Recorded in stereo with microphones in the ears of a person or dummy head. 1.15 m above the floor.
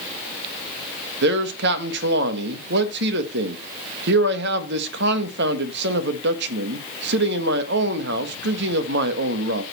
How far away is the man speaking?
About 1.3 m.